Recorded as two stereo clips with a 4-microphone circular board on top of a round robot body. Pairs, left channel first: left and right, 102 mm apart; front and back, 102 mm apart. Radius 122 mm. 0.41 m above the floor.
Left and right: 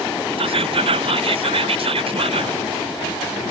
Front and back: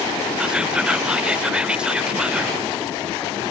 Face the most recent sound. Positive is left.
turn(degrees=-100)